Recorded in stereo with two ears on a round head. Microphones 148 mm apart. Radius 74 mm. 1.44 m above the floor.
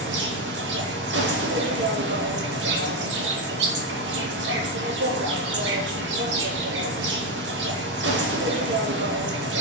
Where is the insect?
80° right, 0.8 m.